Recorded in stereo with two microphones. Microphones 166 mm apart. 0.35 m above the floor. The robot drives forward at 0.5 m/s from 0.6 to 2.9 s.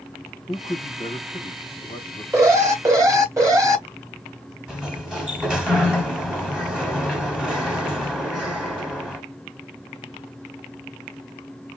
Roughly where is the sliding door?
Centre.